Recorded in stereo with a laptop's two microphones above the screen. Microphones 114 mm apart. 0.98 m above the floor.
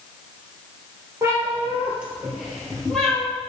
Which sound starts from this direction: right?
A cat meowing, at 1.2 s.